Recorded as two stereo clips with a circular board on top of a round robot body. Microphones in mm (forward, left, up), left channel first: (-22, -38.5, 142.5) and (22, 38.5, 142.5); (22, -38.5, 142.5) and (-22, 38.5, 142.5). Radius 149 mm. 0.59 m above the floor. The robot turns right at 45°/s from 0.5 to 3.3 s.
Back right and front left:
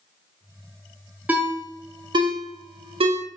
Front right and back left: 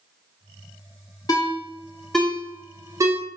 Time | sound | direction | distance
1.3 | a ringtone | 15° right | 0.6 m